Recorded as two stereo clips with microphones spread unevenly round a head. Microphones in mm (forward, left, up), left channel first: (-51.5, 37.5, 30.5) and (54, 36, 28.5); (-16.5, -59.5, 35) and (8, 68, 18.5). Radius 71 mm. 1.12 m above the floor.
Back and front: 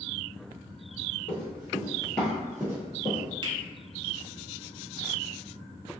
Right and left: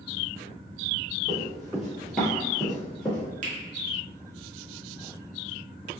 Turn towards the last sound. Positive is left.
turn(degrees=45)